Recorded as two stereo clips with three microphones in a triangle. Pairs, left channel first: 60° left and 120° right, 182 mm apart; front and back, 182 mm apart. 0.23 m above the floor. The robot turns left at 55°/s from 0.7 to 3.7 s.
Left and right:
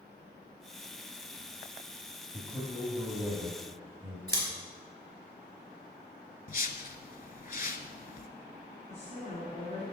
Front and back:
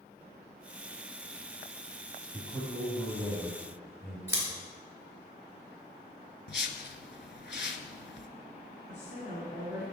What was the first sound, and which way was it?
A man speaking, straight ahead.